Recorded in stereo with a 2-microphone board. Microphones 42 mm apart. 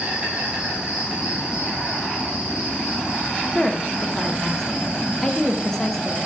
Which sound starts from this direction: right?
An insect, at 0.0 s.